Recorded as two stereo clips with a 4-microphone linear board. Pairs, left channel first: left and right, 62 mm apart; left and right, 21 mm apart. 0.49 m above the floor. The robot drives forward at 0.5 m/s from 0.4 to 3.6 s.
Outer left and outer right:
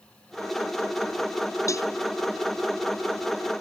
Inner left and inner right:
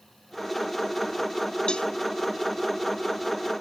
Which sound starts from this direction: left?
A cowbell, at 1.7 s.